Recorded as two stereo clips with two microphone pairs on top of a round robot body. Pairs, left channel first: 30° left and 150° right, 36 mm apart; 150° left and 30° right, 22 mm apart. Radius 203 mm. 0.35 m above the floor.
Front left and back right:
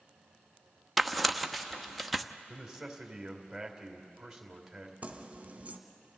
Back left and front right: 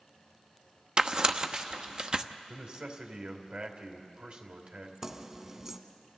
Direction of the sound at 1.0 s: 60° right.